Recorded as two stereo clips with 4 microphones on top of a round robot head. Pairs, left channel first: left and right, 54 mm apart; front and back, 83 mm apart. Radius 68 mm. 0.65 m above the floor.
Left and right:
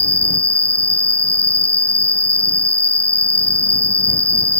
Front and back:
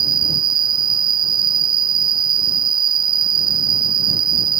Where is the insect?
155° left.